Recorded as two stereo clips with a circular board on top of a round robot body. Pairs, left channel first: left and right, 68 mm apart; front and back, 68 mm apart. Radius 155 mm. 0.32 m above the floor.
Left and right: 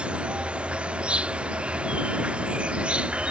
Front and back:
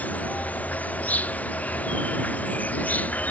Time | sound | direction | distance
0.0 | an insect | 40° right | ?